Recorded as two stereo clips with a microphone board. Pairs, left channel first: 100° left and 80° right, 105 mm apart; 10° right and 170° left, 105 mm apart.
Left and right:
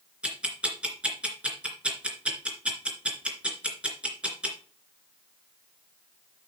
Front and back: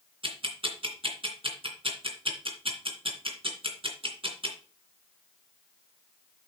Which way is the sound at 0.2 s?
160° right.